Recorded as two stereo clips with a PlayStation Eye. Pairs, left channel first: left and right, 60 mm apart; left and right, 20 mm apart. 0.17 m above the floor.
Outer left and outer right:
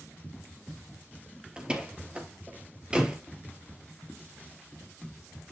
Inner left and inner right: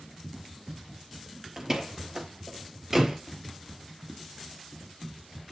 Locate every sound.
1.6 s a door slam: 15° right (ahead or behind), 2 m